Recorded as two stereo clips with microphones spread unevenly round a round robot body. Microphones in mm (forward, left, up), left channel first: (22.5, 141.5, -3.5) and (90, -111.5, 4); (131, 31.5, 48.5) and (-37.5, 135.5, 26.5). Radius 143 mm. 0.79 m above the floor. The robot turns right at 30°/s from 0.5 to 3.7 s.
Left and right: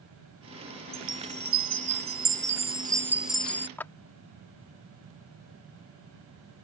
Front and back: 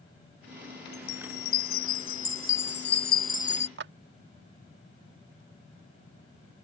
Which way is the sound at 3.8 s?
170° right.